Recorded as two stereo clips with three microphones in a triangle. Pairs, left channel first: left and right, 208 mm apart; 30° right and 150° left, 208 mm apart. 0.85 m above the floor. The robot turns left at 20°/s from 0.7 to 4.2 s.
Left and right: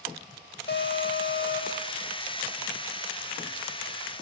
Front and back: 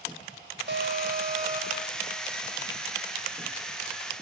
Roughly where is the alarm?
Behind left.